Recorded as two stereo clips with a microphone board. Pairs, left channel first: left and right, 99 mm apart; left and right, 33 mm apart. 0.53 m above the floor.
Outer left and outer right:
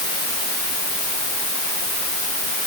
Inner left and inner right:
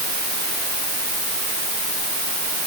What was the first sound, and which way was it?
Only background noise.